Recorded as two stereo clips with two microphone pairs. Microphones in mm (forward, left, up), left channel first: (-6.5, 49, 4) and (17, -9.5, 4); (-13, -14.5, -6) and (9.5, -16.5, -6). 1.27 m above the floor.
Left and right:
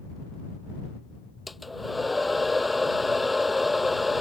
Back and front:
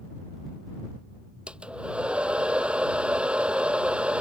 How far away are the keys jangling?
I don't hear keys jangling.